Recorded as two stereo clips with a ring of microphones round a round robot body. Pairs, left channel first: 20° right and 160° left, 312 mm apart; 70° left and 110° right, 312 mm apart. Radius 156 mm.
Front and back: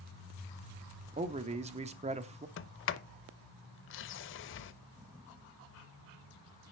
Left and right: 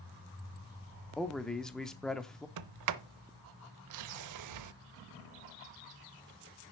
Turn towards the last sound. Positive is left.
turn(degrees=-75)